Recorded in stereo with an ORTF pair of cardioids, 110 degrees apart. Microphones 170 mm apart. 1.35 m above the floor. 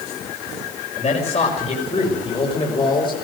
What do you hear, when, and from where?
1.0 s a man speaking: 40° left, 6 m; by 3.1 s 25° left, 5 m